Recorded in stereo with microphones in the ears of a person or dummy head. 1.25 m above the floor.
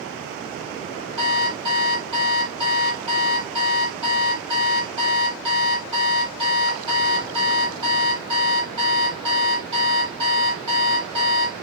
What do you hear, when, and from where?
1.2 s an alarm clock: 25° right (ahead or behind), 1.6 m